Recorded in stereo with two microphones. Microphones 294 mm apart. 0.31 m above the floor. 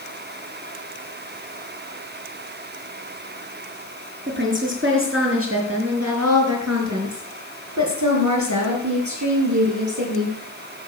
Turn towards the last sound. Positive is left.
turn(degrees=-75)  # may be behind; listen again after turning